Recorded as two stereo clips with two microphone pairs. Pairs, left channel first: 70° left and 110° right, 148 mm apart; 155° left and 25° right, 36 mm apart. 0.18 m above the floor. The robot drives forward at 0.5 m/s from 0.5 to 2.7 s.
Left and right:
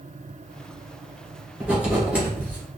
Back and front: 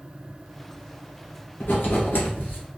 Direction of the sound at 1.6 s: 165° left.